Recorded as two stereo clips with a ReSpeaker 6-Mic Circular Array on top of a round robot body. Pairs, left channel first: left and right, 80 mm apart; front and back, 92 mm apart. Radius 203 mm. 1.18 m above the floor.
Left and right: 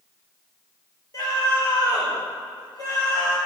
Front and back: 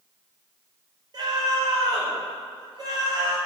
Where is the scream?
130° left, 4.5 m.